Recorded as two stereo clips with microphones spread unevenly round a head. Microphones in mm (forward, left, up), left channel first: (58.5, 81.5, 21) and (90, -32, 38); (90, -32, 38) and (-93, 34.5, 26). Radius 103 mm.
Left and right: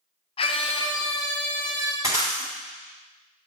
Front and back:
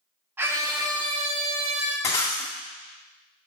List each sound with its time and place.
0.4 s a scream: 80° left, 0.8 m; by 1.9 s 145° right, 0.8 m
2.0 s breaking glass: 75° right, 1.7 m